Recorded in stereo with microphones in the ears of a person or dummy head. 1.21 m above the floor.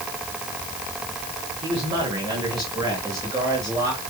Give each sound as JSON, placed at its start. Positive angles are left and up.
{"t": 1.6, "sound": "a man speaking", "side_deg": -25, "distance_m": 6.0}